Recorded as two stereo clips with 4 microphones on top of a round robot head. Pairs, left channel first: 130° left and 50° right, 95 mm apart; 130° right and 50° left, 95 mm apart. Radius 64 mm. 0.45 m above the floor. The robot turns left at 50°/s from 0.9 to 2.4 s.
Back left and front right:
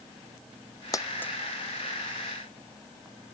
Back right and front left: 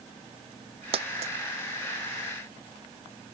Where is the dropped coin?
75° left; by 1.3 s 55° left.